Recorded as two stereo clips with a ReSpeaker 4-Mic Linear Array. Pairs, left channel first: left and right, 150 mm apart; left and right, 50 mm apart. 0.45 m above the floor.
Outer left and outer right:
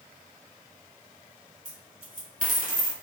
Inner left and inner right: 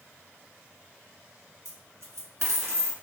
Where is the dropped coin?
65° right (ahead or behind), 1.1 m.